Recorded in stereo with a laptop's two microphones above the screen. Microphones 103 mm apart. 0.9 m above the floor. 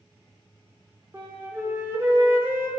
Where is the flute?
25° right (ahead or behind), 0.8 m.